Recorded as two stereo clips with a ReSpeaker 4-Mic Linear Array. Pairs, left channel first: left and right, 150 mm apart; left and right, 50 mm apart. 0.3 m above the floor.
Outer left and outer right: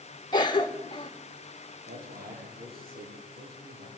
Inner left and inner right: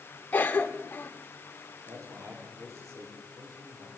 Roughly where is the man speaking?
Right.